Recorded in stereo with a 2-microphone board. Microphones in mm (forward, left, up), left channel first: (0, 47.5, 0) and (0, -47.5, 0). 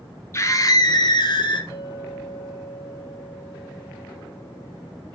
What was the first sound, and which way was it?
A scream, 30° left (ahead or behind).